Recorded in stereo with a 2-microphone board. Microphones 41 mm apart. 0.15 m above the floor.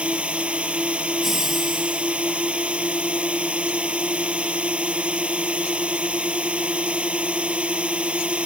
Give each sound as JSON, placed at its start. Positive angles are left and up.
{"t": 0.0, "sound": "a drone", "side_deg": -35}
{"t": 1.2, "sound": "laughter", "side_deg": -5}